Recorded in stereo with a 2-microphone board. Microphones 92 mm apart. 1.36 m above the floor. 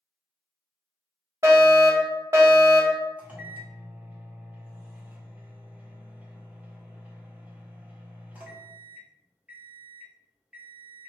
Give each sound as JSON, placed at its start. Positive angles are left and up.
{"t": 1.4, "sound": "a fire alarm", "side_deg": -30, "distance_m": 1.0}
{"t": 3.2, "sound": "a microwave", "side_deg": -15, "distance_m": 0.6}